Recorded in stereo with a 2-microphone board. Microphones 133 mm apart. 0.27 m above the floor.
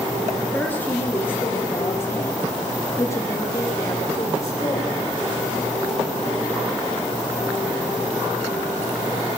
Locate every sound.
0.5 s a woman speaking: 15° left (ahead or behind), 6 m; by 5.2 s 30° left (ahead or behind), 9.5 m